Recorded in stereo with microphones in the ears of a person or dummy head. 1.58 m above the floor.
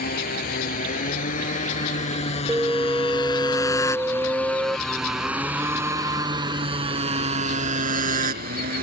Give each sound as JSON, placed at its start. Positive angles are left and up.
{"t": 0.0, "sound": "a motorcycle", "side_deg": 50}
{"t": 2.5, "sound": "an alarm", "side_deg": -10}